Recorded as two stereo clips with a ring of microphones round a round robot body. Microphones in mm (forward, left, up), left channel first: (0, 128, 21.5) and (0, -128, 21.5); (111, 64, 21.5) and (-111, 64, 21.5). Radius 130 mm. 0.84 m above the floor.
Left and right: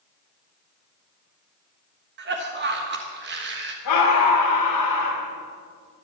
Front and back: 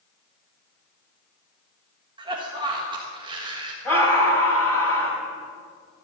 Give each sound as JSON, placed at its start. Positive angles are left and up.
{"t": 2.2, "sound": "a cough", "azimuth_deg": -115, "distance_m": 1.3}
{"t": 3.9, "sound": "a scream", "azimuth_deg": 80, "distance_m": 4.5}